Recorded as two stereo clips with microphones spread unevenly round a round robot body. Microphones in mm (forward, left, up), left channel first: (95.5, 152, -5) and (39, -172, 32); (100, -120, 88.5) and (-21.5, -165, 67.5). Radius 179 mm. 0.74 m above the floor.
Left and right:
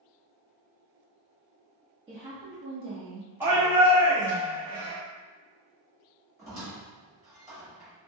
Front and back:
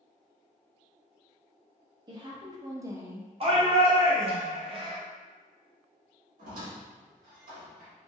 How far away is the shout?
About 1.0 m.